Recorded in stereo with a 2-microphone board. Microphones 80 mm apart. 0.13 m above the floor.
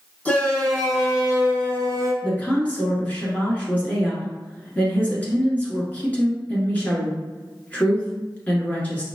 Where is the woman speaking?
20° left (ahead or behind), 1.5 m.